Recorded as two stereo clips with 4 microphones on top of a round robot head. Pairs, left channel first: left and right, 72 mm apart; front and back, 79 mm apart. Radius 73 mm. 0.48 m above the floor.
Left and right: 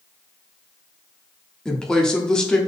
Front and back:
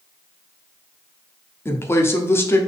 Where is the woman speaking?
15° left, 1.1 m.